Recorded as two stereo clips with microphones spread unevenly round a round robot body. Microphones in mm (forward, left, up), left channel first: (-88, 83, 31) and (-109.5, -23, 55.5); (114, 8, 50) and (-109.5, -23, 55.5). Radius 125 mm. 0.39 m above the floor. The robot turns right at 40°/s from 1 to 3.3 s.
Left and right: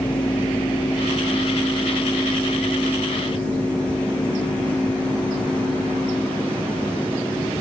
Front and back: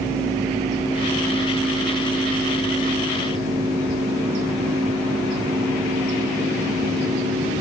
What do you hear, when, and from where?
Only background noise.